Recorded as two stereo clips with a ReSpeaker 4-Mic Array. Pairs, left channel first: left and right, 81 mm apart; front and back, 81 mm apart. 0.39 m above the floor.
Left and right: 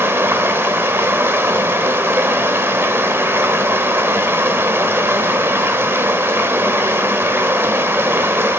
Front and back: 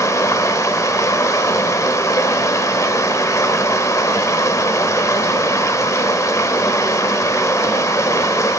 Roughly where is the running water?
Ahead right.